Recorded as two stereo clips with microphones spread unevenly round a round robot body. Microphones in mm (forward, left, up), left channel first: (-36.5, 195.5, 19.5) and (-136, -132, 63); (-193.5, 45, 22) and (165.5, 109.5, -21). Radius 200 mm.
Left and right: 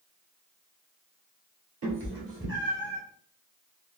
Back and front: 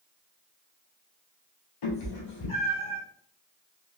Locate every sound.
1.8 s a cat meowing: 150° right, 2 m; by 3.0 s 170° right, 2.0 m